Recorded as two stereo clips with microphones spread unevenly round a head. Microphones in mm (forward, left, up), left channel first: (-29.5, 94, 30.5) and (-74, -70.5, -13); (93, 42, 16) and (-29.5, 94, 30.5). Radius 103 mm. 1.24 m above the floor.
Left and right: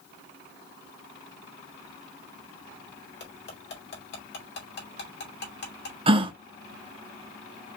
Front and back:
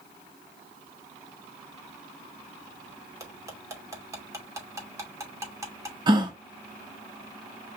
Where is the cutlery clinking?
90° left, 2.5 m.